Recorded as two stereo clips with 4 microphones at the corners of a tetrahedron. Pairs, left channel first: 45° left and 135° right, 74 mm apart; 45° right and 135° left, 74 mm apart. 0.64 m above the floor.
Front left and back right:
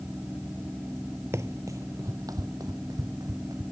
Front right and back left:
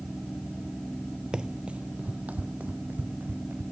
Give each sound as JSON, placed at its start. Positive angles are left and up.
{"t": 1.3, "sound": "running footsteps", "azimuth_deg": -155}